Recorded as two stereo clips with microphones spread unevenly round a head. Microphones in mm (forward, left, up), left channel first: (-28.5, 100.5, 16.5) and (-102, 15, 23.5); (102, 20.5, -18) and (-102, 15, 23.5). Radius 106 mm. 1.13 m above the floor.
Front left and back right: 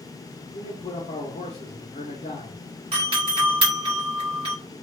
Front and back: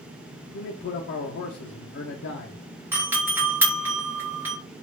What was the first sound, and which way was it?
A man speaking, 10° left.